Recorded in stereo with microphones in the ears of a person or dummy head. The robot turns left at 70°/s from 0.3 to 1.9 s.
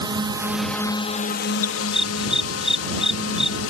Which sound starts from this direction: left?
A dog barking, at 1.6 s.